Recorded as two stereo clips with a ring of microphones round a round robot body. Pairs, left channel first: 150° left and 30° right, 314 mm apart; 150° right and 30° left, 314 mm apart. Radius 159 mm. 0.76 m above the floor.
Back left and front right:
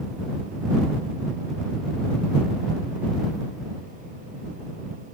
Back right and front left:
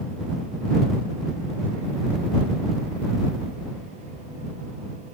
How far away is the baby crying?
No baby crying in this recording.